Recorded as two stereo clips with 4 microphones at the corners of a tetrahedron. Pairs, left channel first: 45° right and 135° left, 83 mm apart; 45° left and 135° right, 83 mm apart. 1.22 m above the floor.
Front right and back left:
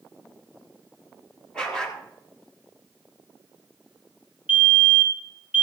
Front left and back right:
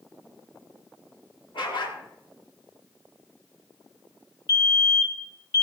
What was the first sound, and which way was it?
A dog barking, 35° left.